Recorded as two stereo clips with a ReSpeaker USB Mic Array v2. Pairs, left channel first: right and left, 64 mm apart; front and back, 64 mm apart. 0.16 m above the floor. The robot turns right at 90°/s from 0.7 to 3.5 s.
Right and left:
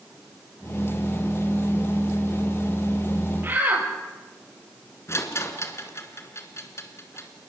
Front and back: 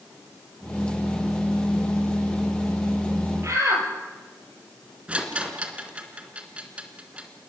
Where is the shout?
140° left, 5.5 m; by 3.9 s 150° left, 5.5 m.